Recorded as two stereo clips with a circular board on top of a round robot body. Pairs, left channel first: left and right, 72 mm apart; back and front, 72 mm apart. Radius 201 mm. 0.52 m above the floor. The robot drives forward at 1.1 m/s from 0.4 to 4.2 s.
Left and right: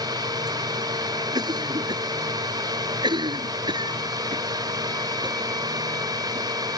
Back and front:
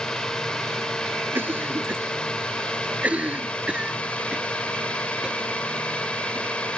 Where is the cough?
65° right; by 6.8 s 80° right.